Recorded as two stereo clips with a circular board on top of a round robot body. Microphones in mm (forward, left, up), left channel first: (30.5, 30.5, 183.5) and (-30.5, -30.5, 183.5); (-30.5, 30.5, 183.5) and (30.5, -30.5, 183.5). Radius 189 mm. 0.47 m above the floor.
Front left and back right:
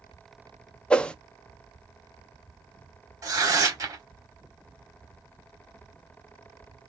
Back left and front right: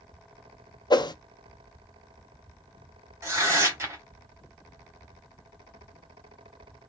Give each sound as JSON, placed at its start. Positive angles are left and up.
{"t": 0.9, "sound": "a whoosh", "azimuth_deg": 120, "distance_m": 0.5}
{"t": 3.2, "sound": "tearing paper", "azimuth_deg": -95, "distance_m": 1.5}